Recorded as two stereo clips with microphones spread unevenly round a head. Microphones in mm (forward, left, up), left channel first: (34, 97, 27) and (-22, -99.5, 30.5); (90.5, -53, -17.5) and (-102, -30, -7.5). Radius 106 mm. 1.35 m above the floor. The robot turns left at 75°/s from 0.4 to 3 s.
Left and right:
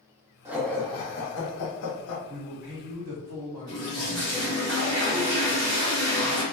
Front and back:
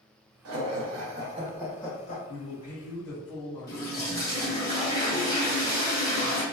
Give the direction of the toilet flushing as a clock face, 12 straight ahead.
3 o'clock.